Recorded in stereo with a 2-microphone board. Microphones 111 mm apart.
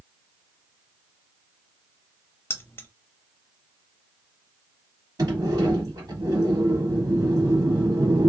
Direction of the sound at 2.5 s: 20° left (ahead or behind).